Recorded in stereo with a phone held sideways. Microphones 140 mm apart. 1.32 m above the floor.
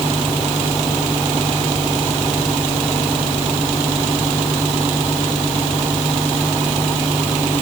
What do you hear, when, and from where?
Only background noise.